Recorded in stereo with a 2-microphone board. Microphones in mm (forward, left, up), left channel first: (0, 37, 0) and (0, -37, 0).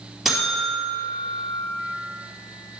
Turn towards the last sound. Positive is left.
turn(degrees=0)  # may be behind; listen again after turning